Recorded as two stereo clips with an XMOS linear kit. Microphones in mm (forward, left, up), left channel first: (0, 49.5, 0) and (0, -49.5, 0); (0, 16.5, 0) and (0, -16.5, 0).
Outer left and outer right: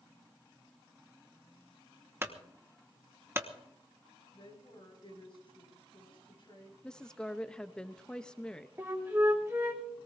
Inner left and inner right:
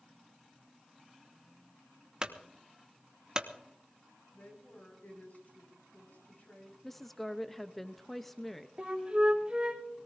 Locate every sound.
2.2 s a clunk: 25° right (ahead or behind), 1.1 m
4.3 s a woman speaking: 55° left (ahead or behind), 6 m
6.8 s a woman speaking: 10° left (ahead or behind), 0.7 m
8.8 s a flute: 25° right (ahead or behind), 2.5 m